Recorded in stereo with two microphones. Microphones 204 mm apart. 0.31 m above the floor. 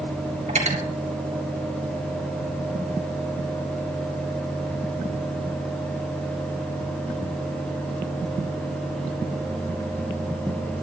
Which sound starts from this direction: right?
Cutlery clinking, at 0.5 s.